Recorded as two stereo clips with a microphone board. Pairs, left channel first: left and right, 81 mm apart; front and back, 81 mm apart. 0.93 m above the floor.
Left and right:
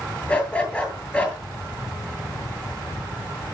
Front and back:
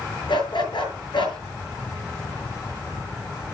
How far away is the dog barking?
About 8 m.